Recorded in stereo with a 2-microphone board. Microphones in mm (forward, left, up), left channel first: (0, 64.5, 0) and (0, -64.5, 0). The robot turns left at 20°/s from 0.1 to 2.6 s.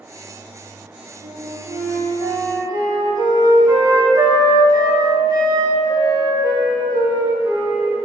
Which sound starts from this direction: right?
A flute, at 1.2 s.